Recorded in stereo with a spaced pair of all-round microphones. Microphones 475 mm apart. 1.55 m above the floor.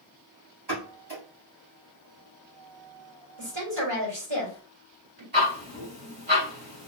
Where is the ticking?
20° right (ahead or behind), 3 m.